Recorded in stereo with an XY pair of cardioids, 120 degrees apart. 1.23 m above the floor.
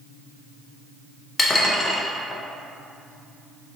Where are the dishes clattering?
20° left, 0.6 m.